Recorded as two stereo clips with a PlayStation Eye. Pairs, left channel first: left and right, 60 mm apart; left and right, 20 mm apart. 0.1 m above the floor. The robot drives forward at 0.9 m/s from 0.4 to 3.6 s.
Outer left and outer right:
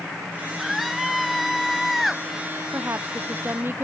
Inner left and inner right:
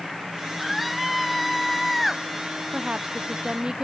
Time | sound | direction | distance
0.6 | a scream | centre (ahead or behind) | ?
2.7 | a woman speaking | 40° right (ahead or behind) | ?